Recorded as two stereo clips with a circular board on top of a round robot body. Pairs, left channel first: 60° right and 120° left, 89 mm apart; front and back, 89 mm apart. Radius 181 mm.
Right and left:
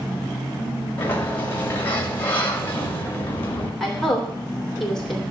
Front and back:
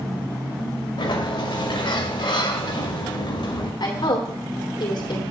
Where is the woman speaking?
25° left, 3.5 m.